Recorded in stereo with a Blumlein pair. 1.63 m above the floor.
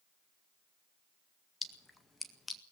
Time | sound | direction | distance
1.6 | a splash | 10° left | 1.9 m